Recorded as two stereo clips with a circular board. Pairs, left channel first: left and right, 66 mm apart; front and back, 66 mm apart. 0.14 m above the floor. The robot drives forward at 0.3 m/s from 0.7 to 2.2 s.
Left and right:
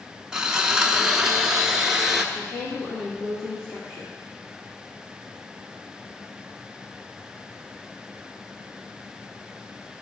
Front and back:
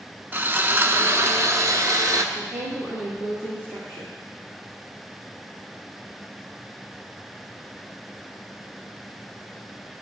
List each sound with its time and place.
0.3 s sawing: 160° right, 0.5 m; by 2.2 s 170° right, 0.9 m
2.3 s a woman speaking: 125° left, 2.5 m